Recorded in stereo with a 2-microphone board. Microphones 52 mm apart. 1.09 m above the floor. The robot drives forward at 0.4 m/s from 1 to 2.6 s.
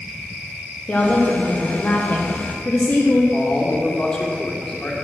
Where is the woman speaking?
30° left (ahead or behind), 0.9 m; by 3.2 s 35° left (ahead or behind), 0.8 m.